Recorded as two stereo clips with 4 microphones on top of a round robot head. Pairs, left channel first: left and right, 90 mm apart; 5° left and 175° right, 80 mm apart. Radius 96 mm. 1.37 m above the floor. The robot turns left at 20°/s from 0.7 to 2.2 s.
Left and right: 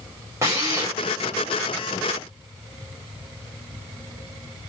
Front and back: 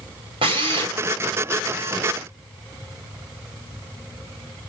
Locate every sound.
0.4 s a drill: 150° right, 3.5 m; by 0.9 s 155° right, 3.5 m